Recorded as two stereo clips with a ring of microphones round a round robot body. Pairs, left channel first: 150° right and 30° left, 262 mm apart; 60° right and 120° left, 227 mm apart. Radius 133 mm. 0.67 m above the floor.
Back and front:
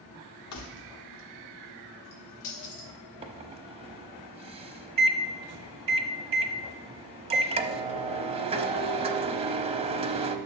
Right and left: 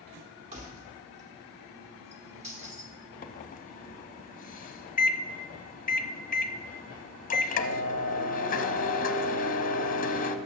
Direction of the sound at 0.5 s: 175° right.